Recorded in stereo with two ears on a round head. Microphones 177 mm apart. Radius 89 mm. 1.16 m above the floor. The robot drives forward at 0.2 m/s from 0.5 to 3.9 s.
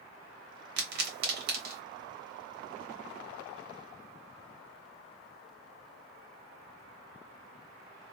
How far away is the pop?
About 1.2 m.